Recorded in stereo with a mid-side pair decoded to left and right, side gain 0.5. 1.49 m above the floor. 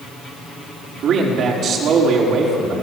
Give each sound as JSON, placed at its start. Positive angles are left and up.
{"t": 1.0, "sound": "a man speaking", "azimuth_deg": -60, "distance_m": 5.0}